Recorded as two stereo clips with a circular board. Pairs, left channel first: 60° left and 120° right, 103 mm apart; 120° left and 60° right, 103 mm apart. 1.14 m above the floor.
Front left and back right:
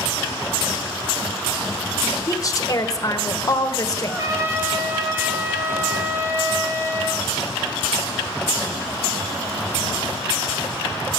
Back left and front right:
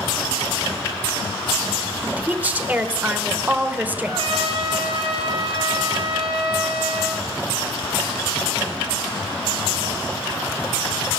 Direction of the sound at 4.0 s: 65° right.